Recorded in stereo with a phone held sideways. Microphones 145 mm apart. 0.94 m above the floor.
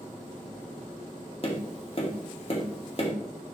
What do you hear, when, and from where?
1.4 s tapping: 40° left (ahead or behind), 2 m